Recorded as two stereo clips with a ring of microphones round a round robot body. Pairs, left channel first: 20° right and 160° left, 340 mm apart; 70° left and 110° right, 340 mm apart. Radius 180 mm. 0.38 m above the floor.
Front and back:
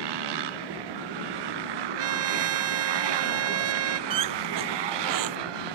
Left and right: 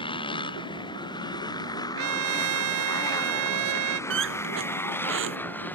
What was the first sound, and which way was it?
A motorcycle, 145° left.